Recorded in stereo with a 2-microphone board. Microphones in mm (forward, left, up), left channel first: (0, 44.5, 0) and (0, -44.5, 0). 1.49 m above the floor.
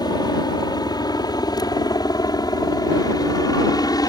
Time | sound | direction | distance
0.0 | a helicopter | 50° left (ahead or behind) | ?